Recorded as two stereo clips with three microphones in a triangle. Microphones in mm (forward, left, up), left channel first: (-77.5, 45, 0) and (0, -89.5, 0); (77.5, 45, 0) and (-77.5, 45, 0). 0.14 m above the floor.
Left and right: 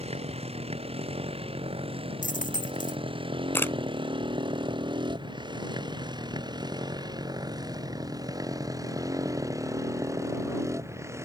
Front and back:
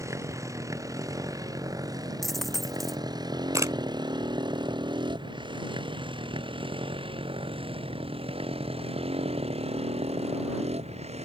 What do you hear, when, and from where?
0.0 s a motorcycle: 110° right; by 11.3 s 130° right
2.2 s a dropped coin: 90° left
3.5 s a camera shutter: 165° left